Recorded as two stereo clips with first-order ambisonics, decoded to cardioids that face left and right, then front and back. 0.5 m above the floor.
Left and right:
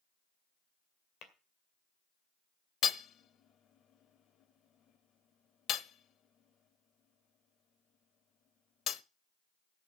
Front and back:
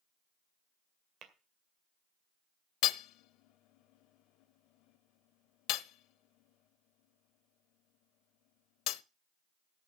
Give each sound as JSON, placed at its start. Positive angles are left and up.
{"t": 1.2, "sound": "tapping", "azimuth_deg": 130, "distance_m": 2.0}
{"t": 2.8, "sound": "hammering", "azimuth_deg": 35, "distance_m": 0.6}